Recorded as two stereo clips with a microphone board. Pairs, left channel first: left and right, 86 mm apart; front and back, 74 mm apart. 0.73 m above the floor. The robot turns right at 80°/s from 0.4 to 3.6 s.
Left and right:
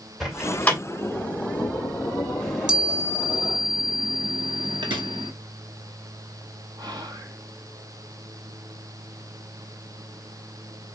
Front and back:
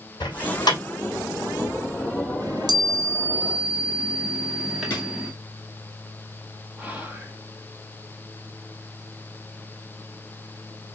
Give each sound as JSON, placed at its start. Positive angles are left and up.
{"t": 0.2, "sound": "a door slam", "azimuth_deg": 0, "distance_m": 2.0}
{"t": 2.4, "sound": "a chime", "azimuth_deg": 170, "distance_m": 1.4}
{"t": 4.9, "sound": "a drawer", "azimuth_deg": -65, "distance_m": 3.5}
{"t": 6.8, "sound": "whispering", "azimuth_deg": -110, "distance_m": 1.4}